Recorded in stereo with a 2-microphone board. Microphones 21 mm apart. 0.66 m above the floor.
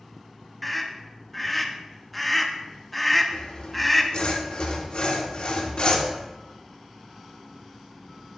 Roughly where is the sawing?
Left.